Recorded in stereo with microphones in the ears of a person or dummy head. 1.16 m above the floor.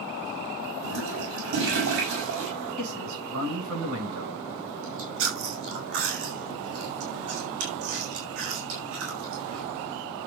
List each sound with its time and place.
0.8 s a toilet flushing: 70° right (ahead or behind), 5.5 m
2.8 s a man speaking: 85° right, 9.5 m
4.8 s chewing: 75° right (ahead or behind), 6 m